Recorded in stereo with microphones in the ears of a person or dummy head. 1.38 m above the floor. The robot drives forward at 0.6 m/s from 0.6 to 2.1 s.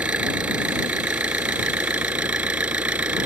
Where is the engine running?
5° right (ahead or behind); by 3.3 s 10° right (ahead or behind).